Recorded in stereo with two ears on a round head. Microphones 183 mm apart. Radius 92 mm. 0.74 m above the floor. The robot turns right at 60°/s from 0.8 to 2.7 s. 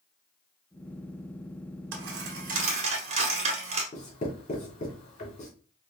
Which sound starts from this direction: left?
Writing, at 3.9 s.